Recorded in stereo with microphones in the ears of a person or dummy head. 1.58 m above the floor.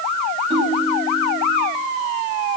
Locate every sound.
0.5 s a ringtone: 30° right (ahead or behind), 9 m